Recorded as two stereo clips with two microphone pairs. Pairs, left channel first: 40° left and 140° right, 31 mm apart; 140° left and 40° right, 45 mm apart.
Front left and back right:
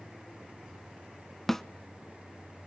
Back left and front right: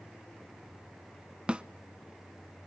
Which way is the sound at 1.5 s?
25° right.